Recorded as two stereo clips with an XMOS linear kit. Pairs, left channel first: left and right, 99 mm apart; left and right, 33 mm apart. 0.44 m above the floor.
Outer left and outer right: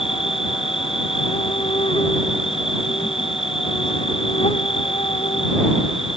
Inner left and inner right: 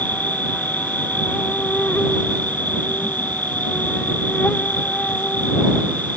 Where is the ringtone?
No ringtone in this recording.